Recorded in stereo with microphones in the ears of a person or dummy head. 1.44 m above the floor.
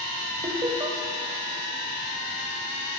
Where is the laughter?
20° right (ahead or behind), 0.7 m.